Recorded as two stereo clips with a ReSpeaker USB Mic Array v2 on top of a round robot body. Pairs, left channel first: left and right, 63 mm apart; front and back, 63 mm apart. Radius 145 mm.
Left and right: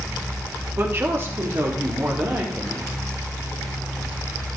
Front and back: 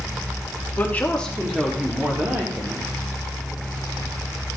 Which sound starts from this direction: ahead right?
A woman speaking, at 0.8 s.